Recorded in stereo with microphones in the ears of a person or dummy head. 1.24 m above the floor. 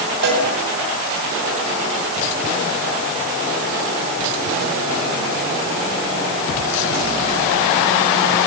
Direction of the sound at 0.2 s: 55° right (ahead or behind).